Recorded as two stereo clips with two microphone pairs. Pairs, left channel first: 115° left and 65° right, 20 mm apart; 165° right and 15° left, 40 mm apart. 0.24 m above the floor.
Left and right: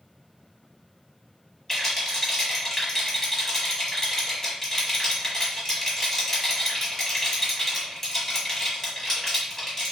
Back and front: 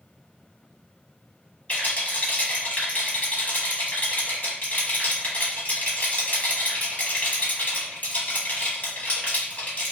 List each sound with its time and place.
1.7 s a rattle: 170° left, 1.1 m